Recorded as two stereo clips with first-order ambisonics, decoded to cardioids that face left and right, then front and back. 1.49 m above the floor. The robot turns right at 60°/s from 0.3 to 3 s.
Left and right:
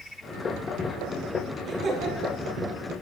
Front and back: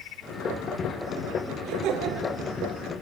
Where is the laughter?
165° right, 3.5 m; by 2.4 s 120° right, 3.5 m.